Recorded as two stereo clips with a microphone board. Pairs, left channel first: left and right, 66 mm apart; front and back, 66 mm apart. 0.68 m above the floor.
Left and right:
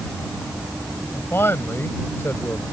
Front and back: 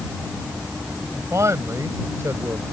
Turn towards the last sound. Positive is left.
turn(degrees=140)